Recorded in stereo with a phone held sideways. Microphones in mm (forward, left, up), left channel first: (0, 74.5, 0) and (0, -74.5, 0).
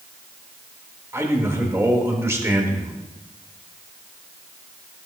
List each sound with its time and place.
1.1 s a man speaking: 20° right (ahead or behind), 1.7 m